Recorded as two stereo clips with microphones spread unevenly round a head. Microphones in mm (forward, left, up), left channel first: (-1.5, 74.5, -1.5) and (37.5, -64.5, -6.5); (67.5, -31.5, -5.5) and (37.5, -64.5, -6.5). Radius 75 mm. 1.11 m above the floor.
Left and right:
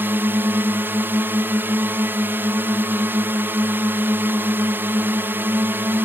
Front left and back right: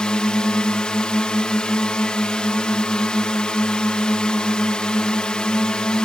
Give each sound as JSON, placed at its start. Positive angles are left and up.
{"t": 0.0, "sound": "a drone", "azimuth_deg": -10}